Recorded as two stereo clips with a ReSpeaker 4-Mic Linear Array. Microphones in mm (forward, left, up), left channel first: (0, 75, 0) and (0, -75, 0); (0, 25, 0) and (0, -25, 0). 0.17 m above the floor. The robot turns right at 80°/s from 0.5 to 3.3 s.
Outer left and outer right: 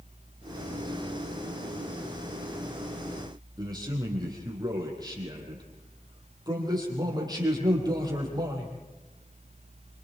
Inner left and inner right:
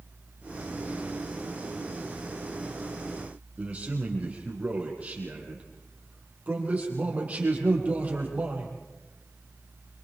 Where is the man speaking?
30° right (ahead or behind), 6 m.